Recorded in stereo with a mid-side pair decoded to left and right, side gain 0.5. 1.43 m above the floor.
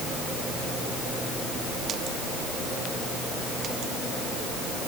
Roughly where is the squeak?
No squeak in this recording.